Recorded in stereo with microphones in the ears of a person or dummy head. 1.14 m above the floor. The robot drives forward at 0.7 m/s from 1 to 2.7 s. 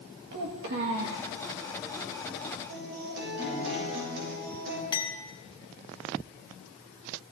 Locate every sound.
0.3 s a child speaking: 65° right (ahead or behind), 1.1 m; by 1.3 s 75° right (ahead or behind), 1.1 m
2.7 s a guitar: 75° right (ahead or behind), 6.5 m
4.9 s a clink: 20° left (ahead or behind), 0.9 m